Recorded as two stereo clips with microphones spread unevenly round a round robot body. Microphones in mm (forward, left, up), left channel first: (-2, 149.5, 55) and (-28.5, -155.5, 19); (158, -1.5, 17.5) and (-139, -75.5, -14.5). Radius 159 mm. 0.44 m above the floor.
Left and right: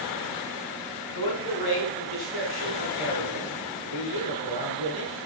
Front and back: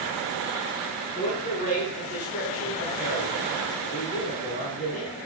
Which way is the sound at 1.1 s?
80° left.